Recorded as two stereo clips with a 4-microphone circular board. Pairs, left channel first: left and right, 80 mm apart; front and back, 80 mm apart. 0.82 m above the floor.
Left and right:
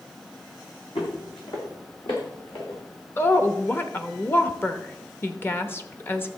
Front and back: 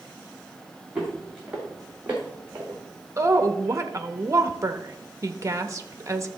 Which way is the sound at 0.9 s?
100° left.